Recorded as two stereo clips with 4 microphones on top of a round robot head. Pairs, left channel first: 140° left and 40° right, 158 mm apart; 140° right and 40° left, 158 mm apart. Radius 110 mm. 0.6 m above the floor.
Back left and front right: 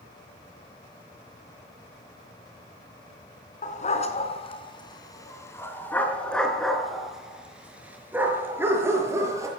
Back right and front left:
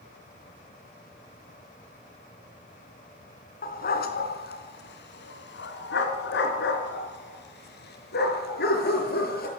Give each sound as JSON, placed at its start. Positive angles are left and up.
{"t": 3.6, "sound": "a dog barking", "azimuth_deg": -175, "distance_m": 3.5}